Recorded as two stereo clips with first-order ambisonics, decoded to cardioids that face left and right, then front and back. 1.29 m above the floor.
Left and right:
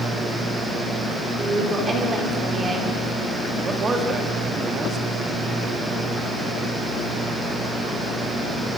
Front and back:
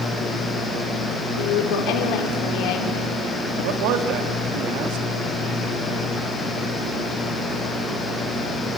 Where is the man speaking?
160° right, 2 m.